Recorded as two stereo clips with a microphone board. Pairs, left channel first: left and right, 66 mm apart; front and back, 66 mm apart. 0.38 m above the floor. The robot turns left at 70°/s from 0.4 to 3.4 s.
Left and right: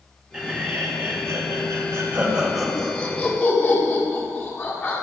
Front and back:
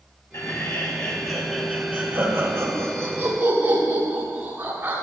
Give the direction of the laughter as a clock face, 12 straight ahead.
1 o'clock.